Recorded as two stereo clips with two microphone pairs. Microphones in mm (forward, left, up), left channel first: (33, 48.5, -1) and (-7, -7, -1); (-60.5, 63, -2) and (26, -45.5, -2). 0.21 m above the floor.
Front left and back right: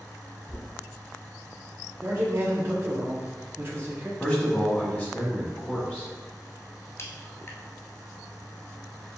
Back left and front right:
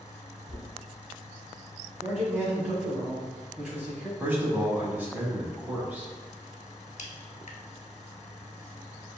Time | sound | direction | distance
0.5 | knocking | 110° left | 1.3 m
2.0 | a man speaking | 125° right | 1.3 m
4.2 | a man speaking | 10° left | 1.2 m
7.0 | a crack | 105° left | 0.7 m